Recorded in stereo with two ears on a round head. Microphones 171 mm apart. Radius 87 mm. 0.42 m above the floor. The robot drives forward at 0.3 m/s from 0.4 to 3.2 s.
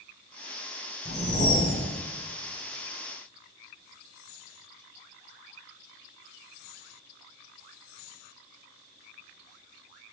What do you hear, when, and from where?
1.1 s a whoosh: 55° left (ahead or behind), 1.8 m; by 1.9 s 50° left (ahead or behind), 1.9 m